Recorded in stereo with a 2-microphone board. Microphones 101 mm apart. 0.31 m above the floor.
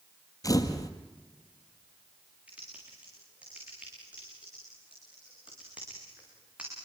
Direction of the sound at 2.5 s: 10° right (ahead or behind).